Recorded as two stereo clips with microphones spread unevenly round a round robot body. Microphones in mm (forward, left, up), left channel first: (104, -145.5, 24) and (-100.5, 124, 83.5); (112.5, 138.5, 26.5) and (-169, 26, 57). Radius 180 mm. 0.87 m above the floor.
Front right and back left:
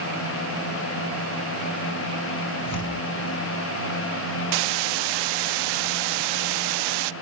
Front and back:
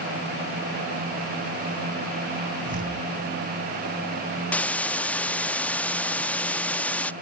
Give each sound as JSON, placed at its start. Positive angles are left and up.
{"t": 2.6, "sound": "tearing paper", "azimuth_deg": -90, "distance_m": 6.0}
{"t": 4.5, "sound": "a hiss", "azimuth_deg": 110, "distance_m": 0.6}